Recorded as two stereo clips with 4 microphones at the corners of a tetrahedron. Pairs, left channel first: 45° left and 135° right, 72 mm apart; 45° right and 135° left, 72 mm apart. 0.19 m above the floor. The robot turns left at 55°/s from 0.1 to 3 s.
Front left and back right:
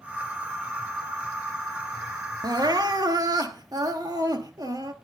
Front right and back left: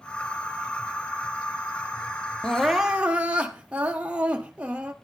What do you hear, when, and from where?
2.4 s crying: 120° right, 1.4 m; by 4.9 s 155° right, 1.4 m